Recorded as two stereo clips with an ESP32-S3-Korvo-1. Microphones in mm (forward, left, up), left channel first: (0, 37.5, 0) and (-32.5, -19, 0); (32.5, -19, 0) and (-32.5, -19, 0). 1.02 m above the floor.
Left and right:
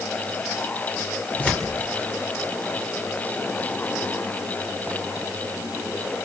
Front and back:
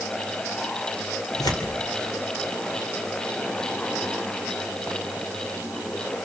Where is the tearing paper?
5° right, 3.5 m.